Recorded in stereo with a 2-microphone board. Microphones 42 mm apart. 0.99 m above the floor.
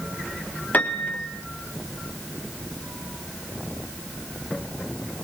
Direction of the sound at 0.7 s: 45° left (ahead or behind).